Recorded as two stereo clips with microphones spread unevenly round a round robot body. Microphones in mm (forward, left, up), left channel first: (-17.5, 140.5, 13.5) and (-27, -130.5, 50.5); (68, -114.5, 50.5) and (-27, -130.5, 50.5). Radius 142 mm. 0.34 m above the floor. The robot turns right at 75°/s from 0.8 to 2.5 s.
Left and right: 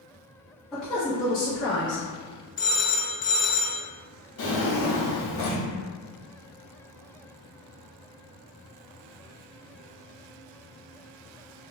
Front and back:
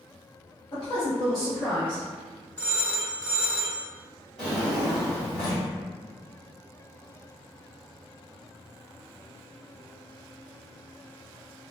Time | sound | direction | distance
0.7 | a woman speaking | 5° left | 1.2 m
2.6 | a phone ringing | 70° left | 0.5 m
4.4 | a drawer | 95° left | 1.2 m